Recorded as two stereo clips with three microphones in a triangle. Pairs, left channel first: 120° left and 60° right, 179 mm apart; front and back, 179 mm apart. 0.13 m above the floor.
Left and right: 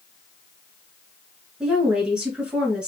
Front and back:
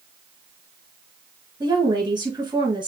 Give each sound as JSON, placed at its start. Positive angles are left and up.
{"t": 1.6, "sound": "a woman speaking", "azimuth_deg": -140, "distance_m": 1.9}